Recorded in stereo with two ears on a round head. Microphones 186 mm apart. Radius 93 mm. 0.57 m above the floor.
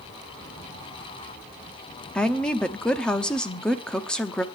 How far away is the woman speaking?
About 0.7 m.